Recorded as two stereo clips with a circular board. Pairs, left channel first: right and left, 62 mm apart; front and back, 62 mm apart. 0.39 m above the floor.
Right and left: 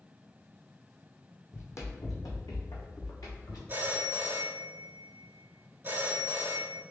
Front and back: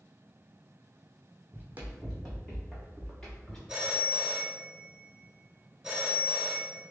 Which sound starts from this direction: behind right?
Running footsteps, at 1.5 s.